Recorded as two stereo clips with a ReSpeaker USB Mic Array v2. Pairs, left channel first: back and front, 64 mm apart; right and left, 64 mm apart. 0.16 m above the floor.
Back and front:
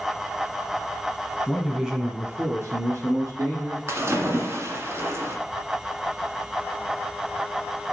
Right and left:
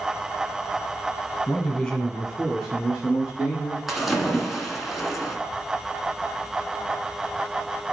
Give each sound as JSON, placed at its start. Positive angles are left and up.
{"t": 1.5, "sound": "a man speaking", "azimuth_deg": -115, "distance_m": 1.3}
{"t": 3.9, "sound": "a splash", "azimuth_deg": 0, "distance_m": 1.4}